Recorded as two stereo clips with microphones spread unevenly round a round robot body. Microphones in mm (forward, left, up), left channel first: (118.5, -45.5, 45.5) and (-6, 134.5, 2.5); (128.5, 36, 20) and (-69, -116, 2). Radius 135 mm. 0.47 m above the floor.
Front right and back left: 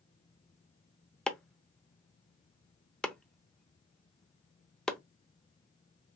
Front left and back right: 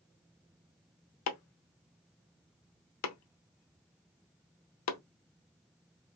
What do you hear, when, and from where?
1.3 s chopping: 40° left, 0.8 m